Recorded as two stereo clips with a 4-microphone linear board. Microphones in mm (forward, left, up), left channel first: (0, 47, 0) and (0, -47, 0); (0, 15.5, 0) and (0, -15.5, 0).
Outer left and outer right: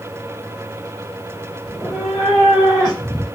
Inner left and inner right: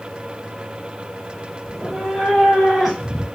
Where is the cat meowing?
5° right (ahead or behind), 1.2 m; by 3.2 s 5° left (ahead or behind), 2.5 m.